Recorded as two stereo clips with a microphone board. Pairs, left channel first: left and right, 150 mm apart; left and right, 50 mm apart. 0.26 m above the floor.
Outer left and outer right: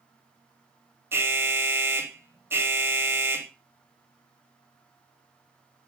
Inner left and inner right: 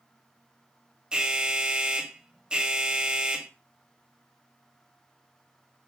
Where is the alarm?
15° right (ahead or behind), 1.0 m.